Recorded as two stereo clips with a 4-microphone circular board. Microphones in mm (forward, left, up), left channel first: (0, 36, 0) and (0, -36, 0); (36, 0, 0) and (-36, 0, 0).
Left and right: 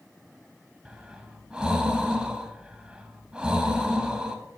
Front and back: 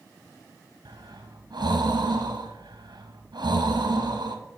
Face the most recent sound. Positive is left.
turn(degrees=-165)